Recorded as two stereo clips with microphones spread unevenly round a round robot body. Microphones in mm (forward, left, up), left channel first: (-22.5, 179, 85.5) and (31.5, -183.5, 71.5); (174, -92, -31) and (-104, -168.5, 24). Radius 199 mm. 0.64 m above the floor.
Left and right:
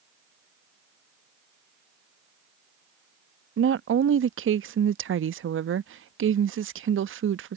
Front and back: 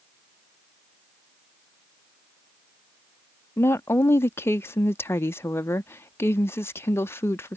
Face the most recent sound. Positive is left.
turn(degrees=-50)